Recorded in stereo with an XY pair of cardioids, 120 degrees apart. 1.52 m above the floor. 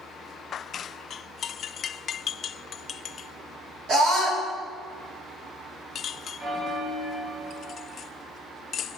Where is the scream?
55° right, 4.5 m.